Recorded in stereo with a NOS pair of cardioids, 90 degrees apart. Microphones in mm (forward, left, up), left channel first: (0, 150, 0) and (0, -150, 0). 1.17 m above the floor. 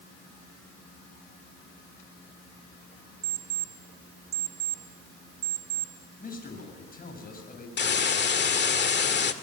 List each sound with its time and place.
3.2 s an alarm clock: 55° right, 2.0 m
6.2 s a man speaking: 30° left, 8 m
7.8 s a hiss: 35° left, 1.9 m